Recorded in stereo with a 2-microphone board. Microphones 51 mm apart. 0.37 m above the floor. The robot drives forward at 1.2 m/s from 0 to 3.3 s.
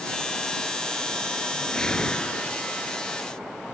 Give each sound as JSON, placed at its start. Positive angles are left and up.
{"t": 1.6, "sound": "a whoosh", "side_deg": 10}